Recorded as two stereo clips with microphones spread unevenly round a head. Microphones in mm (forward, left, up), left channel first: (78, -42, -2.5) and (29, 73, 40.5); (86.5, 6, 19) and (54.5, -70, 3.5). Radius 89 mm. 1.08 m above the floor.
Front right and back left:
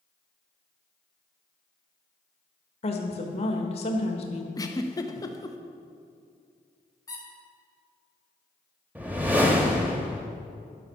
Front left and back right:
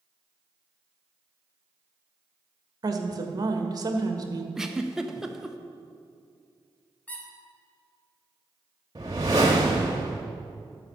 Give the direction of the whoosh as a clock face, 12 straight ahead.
6 o'clock.